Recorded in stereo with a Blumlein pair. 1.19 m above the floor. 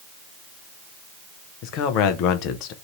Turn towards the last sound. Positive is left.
turn(degrees=40)